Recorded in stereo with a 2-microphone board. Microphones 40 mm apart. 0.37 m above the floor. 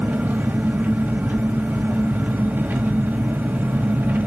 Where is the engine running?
55° right (ahead or behind), 1.7 m.